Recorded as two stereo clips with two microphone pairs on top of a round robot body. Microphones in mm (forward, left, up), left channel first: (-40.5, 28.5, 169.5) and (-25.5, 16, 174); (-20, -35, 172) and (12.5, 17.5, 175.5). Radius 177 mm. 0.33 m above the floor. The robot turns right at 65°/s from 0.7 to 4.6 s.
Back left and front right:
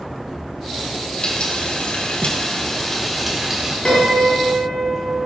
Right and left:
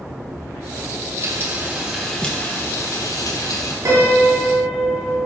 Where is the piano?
90° left, 4.5 m; by 5.2 s 140° left, 4.5 m.